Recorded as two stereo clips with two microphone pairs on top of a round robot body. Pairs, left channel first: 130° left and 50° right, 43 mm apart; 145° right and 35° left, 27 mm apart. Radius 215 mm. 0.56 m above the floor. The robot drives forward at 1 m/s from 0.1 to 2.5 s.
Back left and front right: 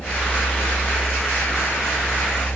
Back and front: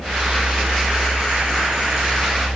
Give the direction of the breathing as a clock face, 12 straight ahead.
No breathing in this recording.